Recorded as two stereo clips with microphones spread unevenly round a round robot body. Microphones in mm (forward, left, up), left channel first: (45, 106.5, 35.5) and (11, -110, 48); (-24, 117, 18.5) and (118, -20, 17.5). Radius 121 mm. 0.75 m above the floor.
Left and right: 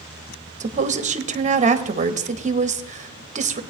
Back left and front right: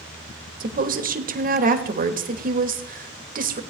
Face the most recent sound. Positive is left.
turn(degrees=-55)